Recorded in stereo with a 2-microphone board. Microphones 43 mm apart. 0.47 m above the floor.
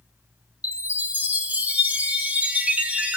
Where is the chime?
35° right (ahead or behind), 0.8 m.